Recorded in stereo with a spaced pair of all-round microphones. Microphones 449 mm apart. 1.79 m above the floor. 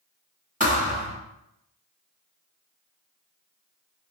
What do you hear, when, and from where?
0.6 s a thud: 15° right (ahead or behind), 1.2 m